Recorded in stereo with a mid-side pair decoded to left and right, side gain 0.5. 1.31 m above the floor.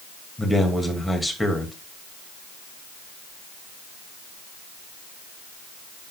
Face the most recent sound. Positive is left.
turn(degrees=10)